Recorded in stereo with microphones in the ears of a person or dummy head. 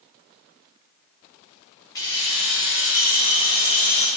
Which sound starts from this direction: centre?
Keys jangling, at 1.9 s.